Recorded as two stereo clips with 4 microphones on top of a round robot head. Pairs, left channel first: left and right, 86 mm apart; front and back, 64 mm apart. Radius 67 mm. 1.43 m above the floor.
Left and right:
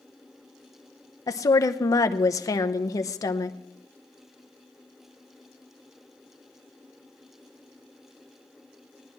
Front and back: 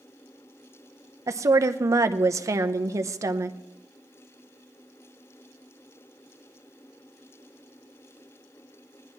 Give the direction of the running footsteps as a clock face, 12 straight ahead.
No running footsteps in this recording.